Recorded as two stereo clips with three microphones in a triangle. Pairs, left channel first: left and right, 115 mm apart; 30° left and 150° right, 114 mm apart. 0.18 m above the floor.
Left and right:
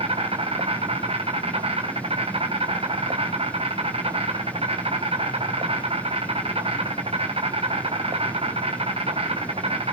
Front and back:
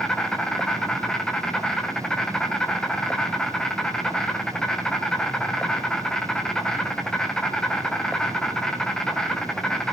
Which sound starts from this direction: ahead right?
An insect, at 0.0 s.